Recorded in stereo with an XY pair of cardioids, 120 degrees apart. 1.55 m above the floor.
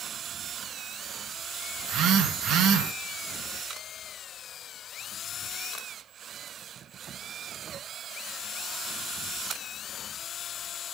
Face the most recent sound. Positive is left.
turn(degrees=-65)